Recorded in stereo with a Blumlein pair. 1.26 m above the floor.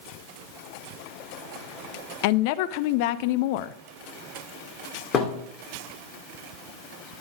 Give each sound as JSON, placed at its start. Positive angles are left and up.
{"t": 2.2, "sound": "a woman speaking", "azimuth_deg": 45, "distance_m": 0.6}
{"t": 5.1, "sound": "a thud", "azimuth_deg": 30, "distance_m": 2.5}